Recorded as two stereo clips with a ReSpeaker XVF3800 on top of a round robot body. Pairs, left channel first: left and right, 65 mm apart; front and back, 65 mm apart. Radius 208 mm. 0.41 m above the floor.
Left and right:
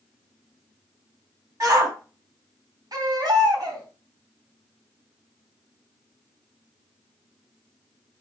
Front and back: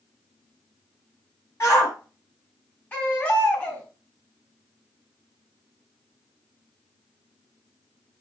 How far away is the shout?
About 5 m.